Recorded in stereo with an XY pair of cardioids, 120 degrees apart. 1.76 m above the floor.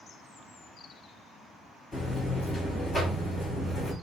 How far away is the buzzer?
About 3 m.